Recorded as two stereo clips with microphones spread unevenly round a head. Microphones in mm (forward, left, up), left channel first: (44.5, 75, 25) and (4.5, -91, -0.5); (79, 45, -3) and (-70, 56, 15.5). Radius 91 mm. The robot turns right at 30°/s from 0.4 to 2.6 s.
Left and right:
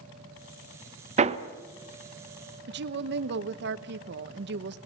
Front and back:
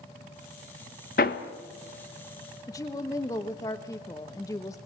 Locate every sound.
1.2 s hammering: 50° right, 1.2 m; by 1.4 s 45° right, 1.2 m
2.7 s a woman speaking: 80° right, 1.1 m